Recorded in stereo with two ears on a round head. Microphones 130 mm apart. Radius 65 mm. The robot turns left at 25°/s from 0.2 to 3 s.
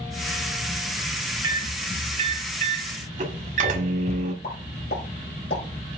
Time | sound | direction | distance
1.4 | a microwave | 30° right (ahead or behind) | 1.3 m
4.4 | a pop | 75° left (ahead or behind) | 4 m